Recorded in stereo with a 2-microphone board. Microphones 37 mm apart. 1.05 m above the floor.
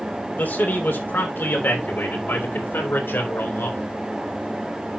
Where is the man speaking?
60° left (ahead or behind), 3 m; by 3.9 s 75° left (ahead or behind), 3.5 m.